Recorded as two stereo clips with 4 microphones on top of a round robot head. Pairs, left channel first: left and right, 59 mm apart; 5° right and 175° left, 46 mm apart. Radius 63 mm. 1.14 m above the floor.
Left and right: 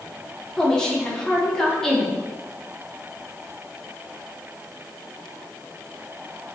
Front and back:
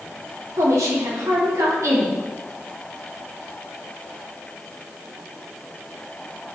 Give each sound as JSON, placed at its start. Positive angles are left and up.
{"t": 0.6, "sound": "a woman speaking", "azimuth_deg": 170, "distance_m": 2.5}